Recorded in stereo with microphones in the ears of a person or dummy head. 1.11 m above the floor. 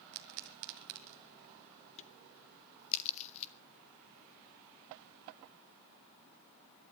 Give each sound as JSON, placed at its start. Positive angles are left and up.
{"t": 0.1, "sound": "a pop", "side_deg": -55, "distance_m": 1.6}
{"t": 2.0, "sound": "a crack", "side_deg": 40, "distance_m": 1.5}